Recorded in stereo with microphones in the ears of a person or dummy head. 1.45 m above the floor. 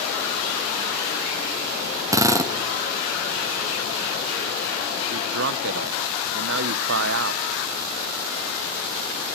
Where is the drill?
15° right (ahead or behind), 0.7 m.